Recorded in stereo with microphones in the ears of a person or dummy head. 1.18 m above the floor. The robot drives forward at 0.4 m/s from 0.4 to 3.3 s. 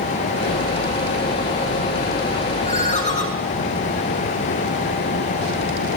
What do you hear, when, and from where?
2.6 s a ringtone: 40° left (ahead or behind), 5 m